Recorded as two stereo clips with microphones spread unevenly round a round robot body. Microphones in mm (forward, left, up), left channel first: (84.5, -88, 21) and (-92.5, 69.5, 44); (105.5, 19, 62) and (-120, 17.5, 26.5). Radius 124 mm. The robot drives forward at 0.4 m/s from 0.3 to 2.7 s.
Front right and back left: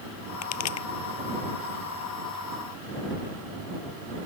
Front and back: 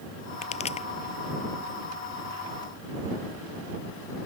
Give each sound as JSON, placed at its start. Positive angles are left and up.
{"t": 0.4, "sound": "a pop", "azimuth_deg": -65}